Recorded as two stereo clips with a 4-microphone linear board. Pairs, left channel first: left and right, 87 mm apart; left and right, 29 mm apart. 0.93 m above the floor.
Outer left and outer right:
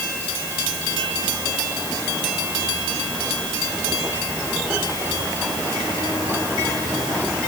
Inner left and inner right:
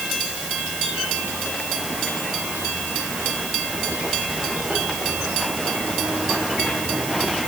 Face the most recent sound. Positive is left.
No sound to turn to.